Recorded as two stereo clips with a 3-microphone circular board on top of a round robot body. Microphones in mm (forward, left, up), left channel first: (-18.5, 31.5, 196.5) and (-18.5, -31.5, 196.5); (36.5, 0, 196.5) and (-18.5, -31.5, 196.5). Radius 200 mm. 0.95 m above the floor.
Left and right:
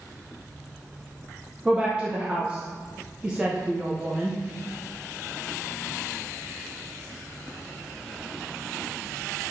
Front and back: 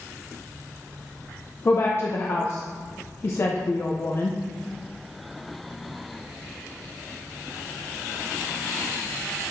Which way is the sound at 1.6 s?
15° right.